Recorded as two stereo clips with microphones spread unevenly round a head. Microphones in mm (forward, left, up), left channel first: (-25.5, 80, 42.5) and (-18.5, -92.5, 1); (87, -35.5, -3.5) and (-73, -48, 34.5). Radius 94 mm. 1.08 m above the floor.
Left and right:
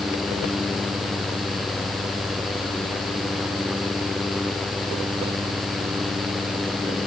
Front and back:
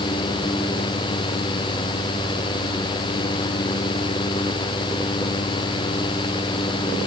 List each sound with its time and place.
Only background noise.